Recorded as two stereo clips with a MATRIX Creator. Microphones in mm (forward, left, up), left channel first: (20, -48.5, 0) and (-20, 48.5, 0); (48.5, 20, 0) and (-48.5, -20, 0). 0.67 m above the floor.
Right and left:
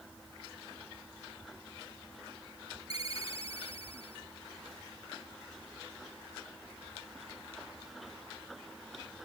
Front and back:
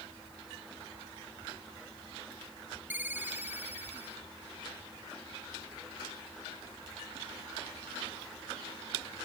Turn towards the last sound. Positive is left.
turn(degrees=-85)